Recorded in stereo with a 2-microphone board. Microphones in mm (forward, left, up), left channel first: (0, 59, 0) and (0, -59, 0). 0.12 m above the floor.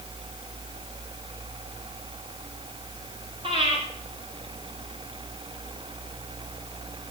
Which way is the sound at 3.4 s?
50° right (ahead or behind).